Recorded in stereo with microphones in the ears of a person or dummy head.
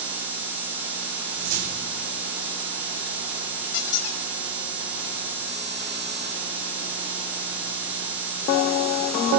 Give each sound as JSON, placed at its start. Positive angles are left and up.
{"t": 1.3, "sound": "a whoosh", "side_deg": -70, "distance_m": 2.5}
{"t": 3.7, "sound": "a squeak", "side_deg": 65, "distance_m": 0.6}